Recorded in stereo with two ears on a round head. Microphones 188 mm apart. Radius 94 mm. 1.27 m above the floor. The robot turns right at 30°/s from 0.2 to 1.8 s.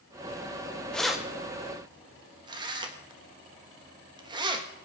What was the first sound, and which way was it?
Keys jangling, 5° left (ahead or behind).